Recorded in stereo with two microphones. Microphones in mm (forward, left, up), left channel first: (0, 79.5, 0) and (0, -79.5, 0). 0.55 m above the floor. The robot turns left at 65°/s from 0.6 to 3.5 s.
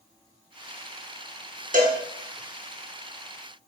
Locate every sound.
1.7 s a cowbell: 60° right (ahead or behind), 0.7 m; by 2.0 s 50° right (ahead or behind), 0.7 m